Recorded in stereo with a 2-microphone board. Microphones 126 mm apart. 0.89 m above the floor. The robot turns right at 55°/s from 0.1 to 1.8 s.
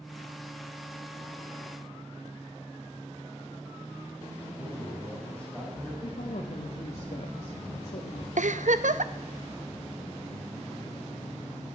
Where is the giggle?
75° right (ahead or behind), 0.6 m.